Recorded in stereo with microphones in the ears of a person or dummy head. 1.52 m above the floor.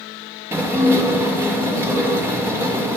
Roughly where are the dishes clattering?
Centre.